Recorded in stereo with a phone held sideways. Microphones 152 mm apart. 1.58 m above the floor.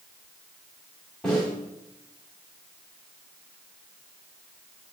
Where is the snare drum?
5° left (ahead or behind), 3 m.